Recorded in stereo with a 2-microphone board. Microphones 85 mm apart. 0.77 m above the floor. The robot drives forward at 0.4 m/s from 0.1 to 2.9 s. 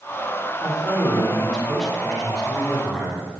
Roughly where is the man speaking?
Centre.